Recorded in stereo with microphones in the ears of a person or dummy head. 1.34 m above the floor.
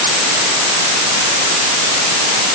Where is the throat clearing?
No throat clearing in this recording.